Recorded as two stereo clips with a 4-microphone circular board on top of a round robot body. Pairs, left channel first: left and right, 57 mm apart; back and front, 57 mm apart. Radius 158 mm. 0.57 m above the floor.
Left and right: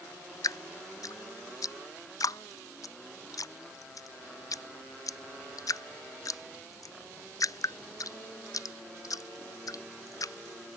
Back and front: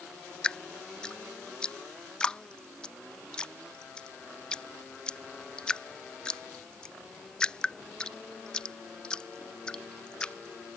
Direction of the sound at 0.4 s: 105° left.